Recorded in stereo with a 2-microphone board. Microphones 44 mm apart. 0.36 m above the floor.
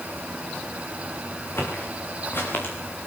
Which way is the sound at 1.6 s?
55° left (ahead or behind).